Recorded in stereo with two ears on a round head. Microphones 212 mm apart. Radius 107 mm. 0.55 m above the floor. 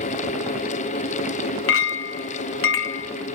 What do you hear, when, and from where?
1.7 s a clink: 55° left (ahead or behind), 0.7 m